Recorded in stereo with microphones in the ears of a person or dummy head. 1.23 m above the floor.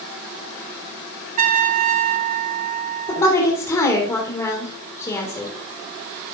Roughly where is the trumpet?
Right.